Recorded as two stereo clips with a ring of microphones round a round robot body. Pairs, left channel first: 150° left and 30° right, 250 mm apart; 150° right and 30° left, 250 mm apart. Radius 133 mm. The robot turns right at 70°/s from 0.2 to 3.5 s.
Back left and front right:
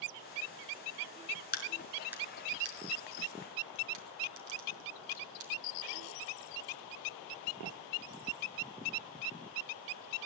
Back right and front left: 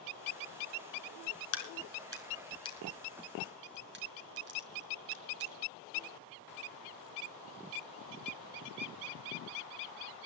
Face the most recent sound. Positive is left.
turn(degrees=-20)